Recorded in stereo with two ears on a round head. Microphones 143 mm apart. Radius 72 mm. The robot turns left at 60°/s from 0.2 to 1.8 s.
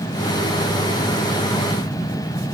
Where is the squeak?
I don't hear a squeak.